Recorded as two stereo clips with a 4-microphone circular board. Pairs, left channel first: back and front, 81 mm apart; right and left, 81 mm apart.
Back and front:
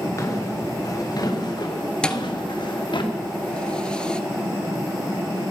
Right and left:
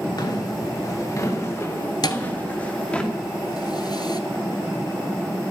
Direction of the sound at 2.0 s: 105° right.